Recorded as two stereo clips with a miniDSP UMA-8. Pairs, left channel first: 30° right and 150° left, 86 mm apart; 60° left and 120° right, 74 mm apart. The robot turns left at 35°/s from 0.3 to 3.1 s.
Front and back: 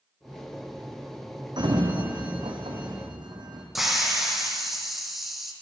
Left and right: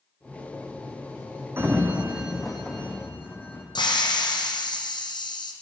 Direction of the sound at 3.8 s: 65° left.